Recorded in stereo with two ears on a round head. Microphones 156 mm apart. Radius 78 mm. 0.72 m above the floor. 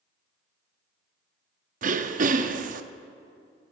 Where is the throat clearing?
45° right (ahead or behind), 0.6 m.